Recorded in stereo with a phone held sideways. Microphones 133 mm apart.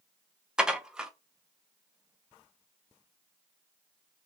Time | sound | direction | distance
0.6 | dishes clattering | 5° right (ahead or behind) | 0.6 m